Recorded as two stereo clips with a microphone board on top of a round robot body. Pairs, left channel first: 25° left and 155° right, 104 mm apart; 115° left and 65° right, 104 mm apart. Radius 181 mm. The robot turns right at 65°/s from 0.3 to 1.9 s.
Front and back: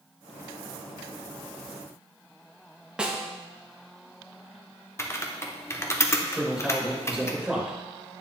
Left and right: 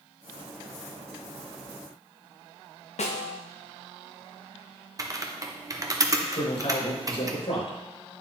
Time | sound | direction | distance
3.0 | a snare drum | 120° left | 0.9 m
5.0 | typing on a keyboard | 30° right | 1.1 m
6.3 | a man speaking | 115° left | 3.5 m